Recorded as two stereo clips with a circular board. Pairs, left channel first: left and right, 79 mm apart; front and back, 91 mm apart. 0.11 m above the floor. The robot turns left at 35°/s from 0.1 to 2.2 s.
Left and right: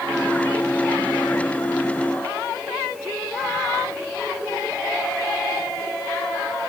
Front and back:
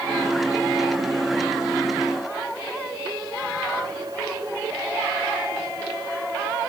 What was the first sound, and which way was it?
Only background noise.